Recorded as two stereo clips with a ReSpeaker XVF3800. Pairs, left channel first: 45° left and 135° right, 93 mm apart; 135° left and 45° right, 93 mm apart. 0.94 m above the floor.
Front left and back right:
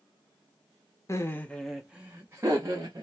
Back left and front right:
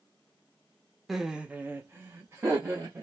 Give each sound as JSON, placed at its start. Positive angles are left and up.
{"t": 1.1, "sound": "laughter", "azimuth_deg": 40, "distance_m": 0.6}